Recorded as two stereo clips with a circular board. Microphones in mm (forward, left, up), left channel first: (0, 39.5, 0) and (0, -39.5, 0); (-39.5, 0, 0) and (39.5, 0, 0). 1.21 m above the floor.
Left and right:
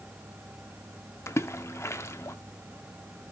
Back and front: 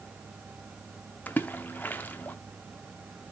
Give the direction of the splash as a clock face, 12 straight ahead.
8 o'clock.